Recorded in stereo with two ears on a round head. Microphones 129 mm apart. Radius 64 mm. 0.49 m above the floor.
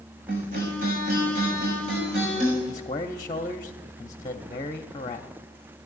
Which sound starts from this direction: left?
A man speaking, at 2.7 s.